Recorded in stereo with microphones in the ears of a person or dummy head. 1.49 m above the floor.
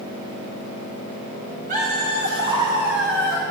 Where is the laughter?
35° right (ahead or behind), 2.5 m; by 3.4 s 30° left (ahead or behind), 1.3 m.